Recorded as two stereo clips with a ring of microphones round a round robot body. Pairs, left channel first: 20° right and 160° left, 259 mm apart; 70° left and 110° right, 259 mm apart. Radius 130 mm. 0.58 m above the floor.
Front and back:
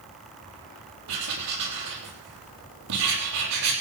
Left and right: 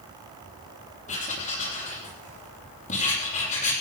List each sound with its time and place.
1.1 s writing: 130° left, 7.5 m